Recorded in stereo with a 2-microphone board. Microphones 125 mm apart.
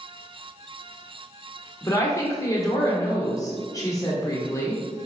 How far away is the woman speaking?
About 1.0 m.